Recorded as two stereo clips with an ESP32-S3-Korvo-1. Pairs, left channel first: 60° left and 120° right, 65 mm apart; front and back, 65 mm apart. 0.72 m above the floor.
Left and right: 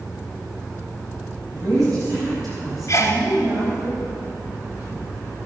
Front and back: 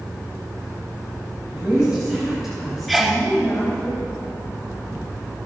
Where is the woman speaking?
105° right, 5 m; by 3.9 s 75° right, 4.5 m.